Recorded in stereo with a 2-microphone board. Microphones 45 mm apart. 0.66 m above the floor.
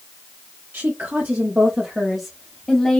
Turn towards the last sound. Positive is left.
turn(degrees=20)  # may be behind; listen again after turning